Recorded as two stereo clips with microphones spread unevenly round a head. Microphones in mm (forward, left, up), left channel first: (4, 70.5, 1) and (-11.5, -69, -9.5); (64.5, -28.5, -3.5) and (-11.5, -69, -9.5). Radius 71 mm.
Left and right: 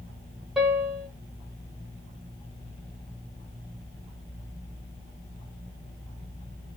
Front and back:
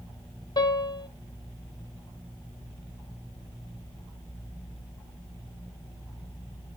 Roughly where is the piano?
Ahead.